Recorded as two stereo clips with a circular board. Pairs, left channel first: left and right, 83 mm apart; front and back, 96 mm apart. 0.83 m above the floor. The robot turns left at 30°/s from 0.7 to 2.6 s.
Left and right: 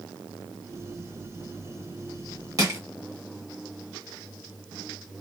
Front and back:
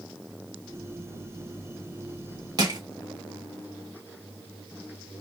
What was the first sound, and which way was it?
Crushing, 135° right.